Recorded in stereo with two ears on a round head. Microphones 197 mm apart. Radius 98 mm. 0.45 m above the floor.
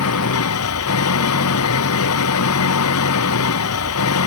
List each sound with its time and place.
0.0 s an engine running: 85° left